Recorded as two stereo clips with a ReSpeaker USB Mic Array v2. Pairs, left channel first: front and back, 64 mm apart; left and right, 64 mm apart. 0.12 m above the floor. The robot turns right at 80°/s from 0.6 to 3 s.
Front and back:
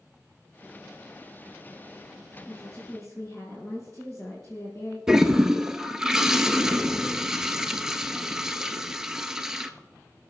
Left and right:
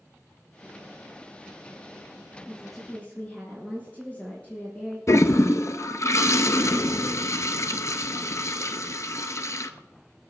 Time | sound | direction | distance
2.5 | a woman speaking | 20° right | 3.5 m
5.1 | a toilet flushing | 100° left | 0.7 m